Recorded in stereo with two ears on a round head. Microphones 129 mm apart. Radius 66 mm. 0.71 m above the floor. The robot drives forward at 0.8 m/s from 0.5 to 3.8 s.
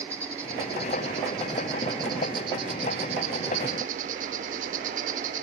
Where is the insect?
20° right (ahead or behind), 3.5 m; by 5.4 s 60° right (ahead or behind), 1.2 m.